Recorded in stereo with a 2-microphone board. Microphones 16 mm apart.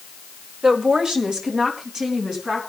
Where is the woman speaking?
55° right (ahead or behind), 1.6 m; by 2.7 s 45° right (ahead or behind), 4 m.